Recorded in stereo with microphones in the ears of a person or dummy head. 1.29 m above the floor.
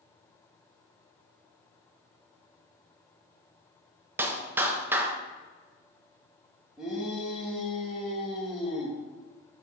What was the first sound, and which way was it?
A clap, 10° right (ahead or behind).